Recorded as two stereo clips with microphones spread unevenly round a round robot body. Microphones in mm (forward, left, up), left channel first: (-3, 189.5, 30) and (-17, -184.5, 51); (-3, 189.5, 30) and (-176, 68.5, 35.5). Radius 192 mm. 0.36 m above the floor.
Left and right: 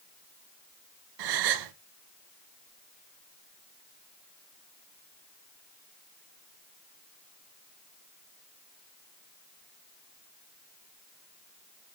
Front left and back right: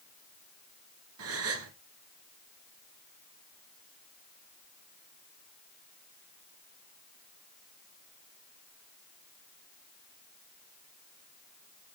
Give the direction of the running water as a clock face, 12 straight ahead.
No running water in this recording.